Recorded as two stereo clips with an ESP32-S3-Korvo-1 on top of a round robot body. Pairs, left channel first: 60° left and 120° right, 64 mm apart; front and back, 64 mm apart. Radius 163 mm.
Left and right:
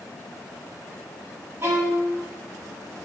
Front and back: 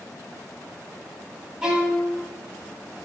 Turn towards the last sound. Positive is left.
turn(degrees=-100)